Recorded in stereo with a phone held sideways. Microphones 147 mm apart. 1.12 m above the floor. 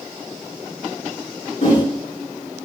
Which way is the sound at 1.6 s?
55° left (ahead or behind).